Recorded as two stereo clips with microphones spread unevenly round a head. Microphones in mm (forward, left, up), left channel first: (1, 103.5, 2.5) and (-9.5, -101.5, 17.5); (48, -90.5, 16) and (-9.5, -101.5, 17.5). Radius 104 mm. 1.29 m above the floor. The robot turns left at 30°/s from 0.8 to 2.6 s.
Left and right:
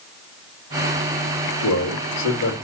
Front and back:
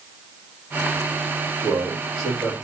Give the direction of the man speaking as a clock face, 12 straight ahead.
7 o'clock.